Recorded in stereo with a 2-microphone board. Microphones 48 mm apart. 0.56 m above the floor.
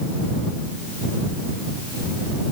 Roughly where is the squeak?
I don't hear a squeak.